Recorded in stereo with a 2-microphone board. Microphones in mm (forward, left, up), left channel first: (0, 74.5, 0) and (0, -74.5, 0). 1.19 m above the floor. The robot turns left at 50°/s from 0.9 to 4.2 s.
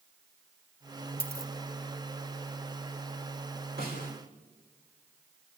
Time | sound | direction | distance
1.2 | a dropped coin | 10° right (ahead or behind) | 3.5 m
3.8 | a snare drum | 85° right | 4.5 m